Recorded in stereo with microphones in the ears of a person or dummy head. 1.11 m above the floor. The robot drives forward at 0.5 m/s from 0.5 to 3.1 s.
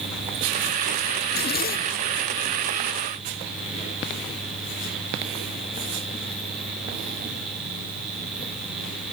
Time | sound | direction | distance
1.2 | a zipper | 45° left (ahead or behind) | 0.6 m